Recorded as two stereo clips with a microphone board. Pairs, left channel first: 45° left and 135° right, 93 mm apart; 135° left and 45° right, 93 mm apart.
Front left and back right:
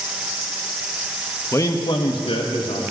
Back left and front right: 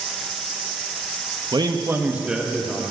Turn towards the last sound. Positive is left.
turn(degrees=45)